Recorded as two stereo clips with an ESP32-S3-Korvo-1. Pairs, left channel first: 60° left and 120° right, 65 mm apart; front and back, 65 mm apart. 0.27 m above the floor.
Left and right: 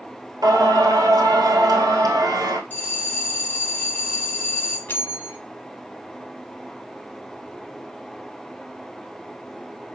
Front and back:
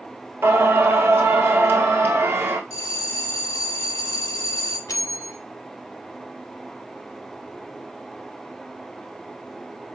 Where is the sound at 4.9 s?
5° left, 0.7 m.